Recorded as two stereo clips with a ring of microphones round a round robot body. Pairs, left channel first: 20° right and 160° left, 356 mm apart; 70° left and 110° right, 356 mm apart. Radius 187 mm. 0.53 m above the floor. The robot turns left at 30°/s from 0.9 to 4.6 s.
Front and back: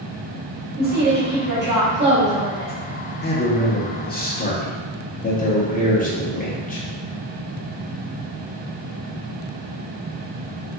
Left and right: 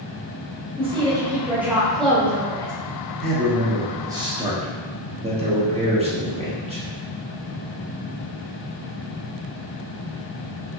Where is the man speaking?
20° right, 0.9 m; by 6.8 s 60° right, 0.9 m.